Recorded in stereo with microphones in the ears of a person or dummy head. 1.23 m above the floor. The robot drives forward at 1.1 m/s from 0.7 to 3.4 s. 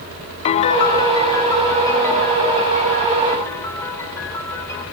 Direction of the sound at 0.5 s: 25° left (ahead or behind).